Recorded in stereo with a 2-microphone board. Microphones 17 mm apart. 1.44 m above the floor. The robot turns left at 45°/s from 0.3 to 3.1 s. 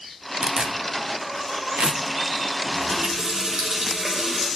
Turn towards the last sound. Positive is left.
turn(degrees=-65)  # may be behind; listen again after turning